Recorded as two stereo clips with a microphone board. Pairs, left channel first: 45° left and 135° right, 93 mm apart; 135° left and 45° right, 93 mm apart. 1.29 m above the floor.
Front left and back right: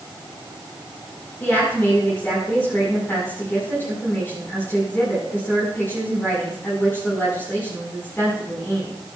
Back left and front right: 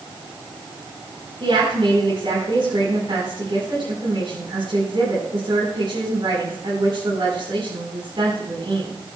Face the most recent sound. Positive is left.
turn(degrees=-20)